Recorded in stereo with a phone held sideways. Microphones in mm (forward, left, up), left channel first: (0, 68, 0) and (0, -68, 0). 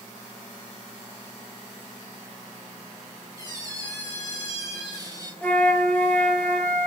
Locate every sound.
3.4 s a squeak: 20° left (ahead or behind), 8.5 m
5.4 s a flute: 10° left (ahead or behind), 2.0 m